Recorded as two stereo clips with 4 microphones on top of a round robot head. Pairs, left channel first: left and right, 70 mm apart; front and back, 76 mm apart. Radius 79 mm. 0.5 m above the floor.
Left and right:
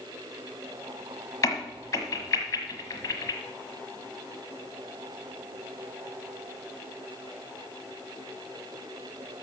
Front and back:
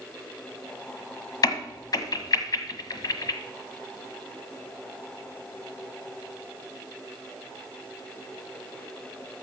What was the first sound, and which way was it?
A crack, 35° left.